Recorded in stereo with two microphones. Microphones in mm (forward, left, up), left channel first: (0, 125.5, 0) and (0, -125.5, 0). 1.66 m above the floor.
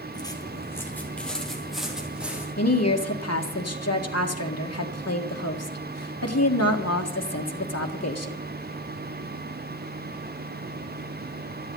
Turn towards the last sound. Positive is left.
turn(degrees=80)